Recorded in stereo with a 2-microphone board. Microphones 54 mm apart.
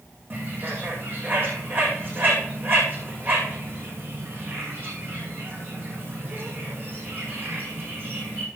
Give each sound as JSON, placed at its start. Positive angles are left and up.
{"t": 0.3, "sound": "a bird", "side_deg": -40, "distance_m": 4.0}